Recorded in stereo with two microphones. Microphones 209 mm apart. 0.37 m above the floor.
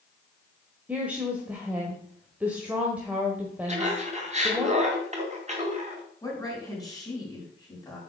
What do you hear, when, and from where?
0.9 s a woman speaking: 5° right (ahead or behind), 1.3 m
3.7 s laughter: 35° right (ahead or behind), 3 m
6.2 s a woman speaking: 15° left (ahead or behind), 4 m